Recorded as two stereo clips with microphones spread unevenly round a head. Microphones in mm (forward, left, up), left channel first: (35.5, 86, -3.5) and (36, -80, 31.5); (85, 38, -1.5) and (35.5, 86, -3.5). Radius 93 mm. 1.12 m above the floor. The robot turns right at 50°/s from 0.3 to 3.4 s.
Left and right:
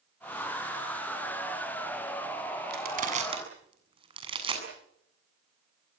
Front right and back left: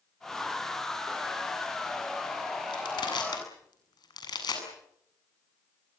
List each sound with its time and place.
2.7 s crushing: 65° right, 7.5 m; by 4.6 s 30° right, 7.5 m